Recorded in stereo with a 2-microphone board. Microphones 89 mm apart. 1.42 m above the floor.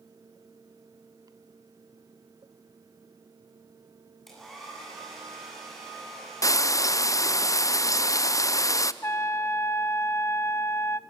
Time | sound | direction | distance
4.3 | a hair dryer | centre (ahead or behind) | 9 m
6.4 | frying | 40° left (ahead or behind) | 0.6 m
9.0 | a trumpet | 30° left (ahead or behind) | 0.5 m